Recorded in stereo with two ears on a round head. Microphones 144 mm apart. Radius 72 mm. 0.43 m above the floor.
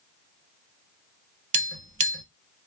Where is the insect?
I don't hear an insect.